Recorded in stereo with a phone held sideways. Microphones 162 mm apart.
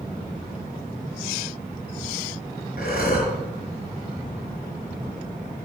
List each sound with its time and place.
2.8 s breathing: 65° left (ahead or behind), 4 m